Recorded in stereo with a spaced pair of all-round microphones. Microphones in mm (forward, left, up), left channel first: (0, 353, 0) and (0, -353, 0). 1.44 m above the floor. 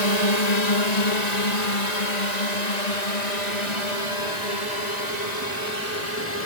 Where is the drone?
65° left (ahead or behind); by 6.5 s 70° left (ahead or behind).